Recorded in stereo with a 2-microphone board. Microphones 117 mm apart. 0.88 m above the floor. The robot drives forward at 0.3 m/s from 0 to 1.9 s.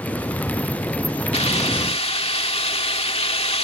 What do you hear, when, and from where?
1.3 s a hiss: 65° left (ahead or behind); by 3.6 s 60° left (ahead or behind)